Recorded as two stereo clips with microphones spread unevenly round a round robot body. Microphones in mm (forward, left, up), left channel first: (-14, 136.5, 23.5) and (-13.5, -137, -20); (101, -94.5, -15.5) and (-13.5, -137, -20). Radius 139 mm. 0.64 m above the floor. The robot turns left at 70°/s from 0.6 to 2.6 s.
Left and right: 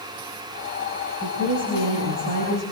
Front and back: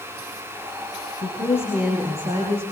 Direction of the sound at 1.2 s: 25° right.